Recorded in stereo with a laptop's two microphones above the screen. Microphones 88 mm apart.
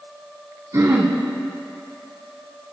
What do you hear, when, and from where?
0.7 s throat clearing: 45° right (ahead or behind), 2 m